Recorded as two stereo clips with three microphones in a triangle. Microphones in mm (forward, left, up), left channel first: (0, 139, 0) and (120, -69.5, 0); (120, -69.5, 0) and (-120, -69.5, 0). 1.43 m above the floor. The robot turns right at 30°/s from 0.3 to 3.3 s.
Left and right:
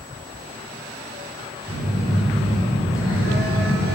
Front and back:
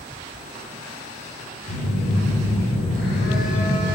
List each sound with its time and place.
1.7 s a phone buzzing: 5° left, 6 m; by 3.9 s 50° left, 6 m